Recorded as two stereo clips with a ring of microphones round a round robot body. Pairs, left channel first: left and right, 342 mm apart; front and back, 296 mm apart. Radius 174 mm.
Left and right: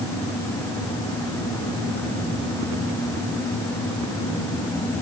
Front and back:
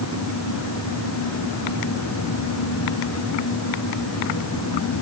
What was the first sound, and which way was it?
Only background noise.